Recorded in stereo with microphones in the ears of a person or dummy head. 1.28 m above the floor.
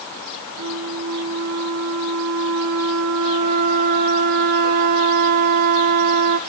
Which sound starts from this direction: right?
A flute, at 0.6 s.